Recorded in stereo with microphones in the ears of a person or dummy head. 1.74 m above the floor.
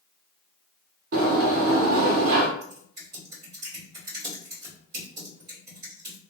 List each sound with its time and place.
1.1 s a sliding door: 50° right (ahead or behind), 0.9 m
2.6 s typing on a keyboard: 25° right (ahead or behind), 1.8 m